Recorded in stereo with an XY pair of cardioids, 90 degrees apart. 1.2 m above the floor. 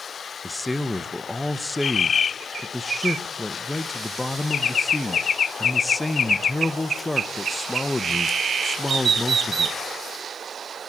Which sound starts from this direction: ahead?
A man speaking, at 0.4 s.